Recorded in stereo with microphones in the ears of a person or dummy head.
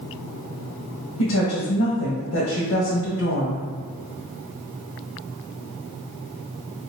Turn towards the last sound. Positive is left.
turn(degrees=85)